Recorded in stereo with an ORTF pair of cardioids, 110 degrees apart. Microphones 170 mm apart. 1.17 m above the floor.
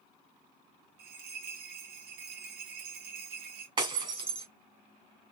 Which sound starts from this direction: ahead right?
Breaking glass, at 3.8 s.